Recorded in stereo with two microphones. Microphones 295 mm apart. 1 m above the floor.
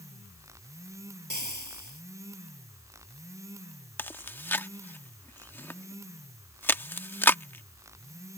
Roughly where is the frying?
Right.